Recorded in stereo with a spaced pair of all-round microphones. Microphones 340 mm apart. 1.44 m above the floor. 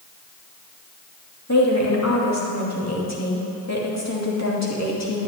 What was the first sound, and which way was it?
A woman speaking, 45° left (ahead or behind).